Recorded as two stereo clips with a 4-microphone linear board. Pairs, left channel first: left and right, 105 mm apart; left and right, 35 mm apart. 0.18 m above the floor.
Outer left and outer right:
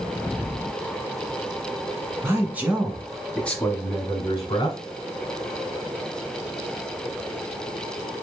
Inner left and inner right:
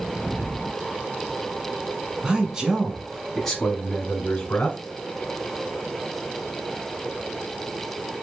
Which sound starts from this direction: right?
A man speaking, at 2.2 s.